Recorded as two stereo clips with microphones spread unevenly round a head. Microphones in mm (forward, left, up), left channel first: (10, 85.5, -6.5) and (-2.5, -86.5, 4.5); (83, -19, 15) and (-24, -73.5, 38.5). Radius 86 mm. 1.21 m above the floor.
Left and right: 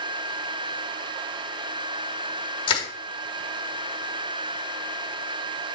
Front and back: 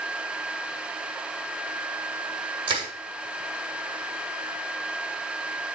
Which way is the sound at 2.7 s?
145° left.